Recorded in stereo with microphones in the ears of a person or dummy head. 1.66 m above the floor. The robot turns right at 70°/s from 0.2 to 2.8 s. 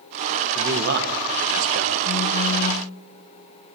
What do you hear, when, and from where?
0.6 s a man speaking: 155° right, 1.8 m; by 1.9 s 55° right, 1.8 m
2.0 s a phone buzzing: 60° left, 0.8 m; by 2.9 s 115° left, 0.8 m